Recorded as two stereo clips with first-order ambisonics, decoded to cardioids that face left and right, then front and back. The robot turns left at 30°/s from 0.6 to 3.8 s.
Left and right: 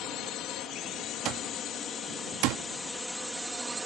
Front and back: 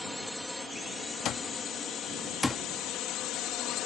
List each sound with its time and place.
0.0 s a drone: 85° left; by 3.9 s 10° right
1.2 s an alarm clock: 45° right; by 2.6 s 85° right